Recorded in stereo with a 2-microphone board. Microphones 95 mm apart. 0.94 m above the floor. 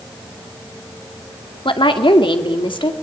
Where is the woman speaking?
65° left (ahead or behind), 2.5 m.